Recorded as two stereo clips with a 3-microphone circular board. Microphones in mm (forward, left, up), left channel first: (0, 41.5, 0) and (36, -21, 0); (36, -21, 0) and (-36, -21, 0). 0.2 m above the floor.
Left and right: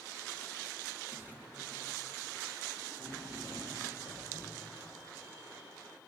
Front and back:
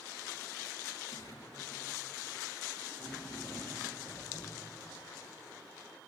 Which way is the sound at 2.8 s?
75° right.